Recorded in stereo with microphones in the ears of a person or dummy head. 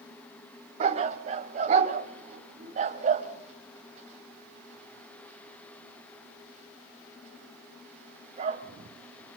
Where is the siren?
No siren in this recording.